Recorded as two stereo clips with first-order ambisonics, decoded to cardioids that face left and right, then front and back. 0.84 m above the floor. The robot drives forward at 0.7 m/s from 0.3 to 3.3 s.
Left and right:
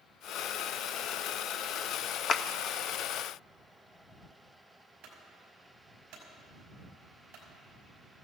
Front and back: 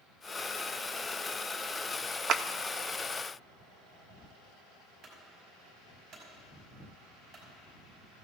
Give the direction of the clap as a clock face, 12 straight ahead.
7 o'clock.